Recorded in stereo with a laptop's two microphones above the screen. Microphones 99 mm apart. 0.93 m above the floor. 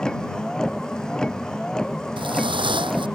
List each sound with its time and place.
0.0 s a vehicle: 10° left (ahead or behind)
2.2 s footsteps: 55° right (ahead or behind)